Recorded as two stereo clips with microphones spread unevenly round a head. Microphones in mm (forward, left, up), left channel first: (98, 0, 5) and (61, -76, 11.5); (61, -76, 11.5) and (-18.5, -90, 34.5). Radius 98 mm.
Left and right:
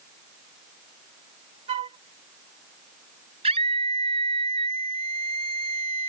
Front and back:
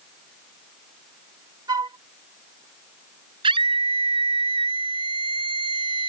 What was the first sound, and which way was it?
A flute, 135° right.